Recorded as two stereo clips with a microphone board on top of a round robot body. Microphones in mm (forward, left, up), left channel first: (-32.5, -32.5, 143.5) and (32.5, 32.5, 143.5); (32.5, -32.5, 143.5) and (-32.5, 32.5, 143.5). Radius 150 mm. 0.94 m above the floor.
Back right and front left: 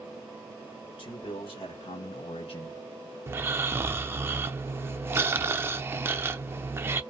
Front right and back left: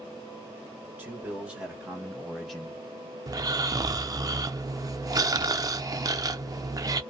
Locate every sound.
1.0 s a man speaking: 160° right, 1.6 m; by 3.2 s 100° right, 0.6 m
3.3 s snoring: 100° left, 0.6 m